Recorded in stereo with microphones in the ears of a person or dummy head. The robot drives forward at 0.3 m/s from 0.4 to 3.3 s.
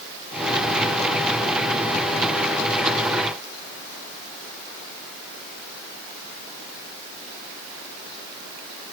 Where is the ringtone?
No ringtone in this recording.